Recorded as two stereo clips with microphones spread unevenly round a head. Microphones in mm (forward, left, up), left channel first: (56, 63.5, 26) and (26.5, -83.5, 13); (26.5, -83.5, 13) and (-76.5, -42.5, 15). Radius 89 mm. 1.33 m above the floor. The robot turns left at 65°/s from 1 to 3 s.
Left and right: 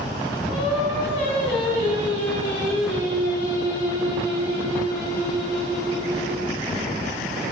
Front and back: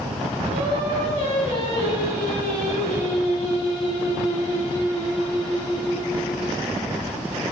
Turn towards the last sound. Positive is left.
turn(degrees=10)